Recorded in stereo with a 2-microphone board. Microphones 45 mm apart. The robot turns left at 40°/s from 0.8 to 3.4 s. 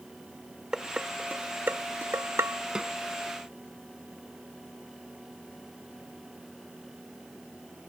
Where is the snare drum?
15° right (ahead or behind); by 3.0 s 10° right (ahead or behind).